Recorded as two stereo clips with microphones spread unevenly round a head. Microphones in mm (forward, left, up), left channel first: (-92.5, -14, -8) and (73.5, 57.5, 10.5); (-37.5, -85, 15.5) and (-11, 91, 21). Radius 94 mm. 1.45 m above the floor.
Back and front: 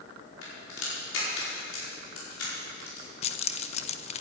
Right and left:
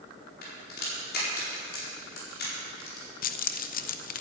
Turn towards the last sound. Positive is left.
turn(degrees=-110)